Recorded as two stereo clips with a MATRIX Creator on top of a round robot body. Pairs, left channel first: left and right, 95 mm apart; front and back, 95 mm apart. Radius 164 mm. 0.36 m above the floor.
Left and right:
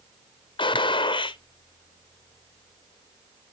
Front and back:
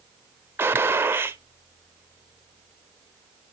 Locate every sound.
0.6 s a gunshot: 115° left, 0.8 m